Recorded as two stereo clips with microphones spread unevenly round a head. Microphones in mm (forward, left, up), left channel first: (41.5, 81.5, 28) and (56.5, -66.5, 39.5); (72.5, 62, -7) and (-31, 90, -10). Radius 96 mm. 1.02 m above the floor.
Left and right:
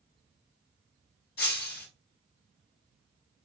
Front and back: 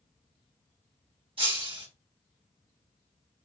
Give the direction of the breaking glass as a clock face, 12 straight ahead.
8 o'clock.